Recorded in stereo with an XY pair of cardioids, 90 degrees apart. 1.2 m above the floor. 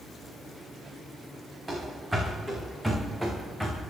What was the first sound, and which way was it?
Running footsteps, 15° right.